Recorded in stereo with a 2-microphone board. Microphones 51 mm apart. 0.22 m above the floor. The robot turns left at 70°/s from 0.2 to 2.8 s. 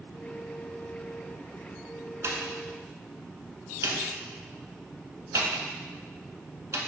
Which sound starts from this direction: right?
A pop, at 2.2 s.